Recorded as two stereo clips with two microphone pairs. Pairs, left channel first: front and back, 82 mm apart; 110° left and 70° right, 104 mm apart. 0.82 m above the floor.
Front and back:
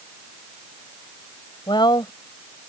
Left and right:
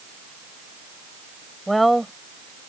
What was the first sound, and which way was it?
A woman speaking, 20° left.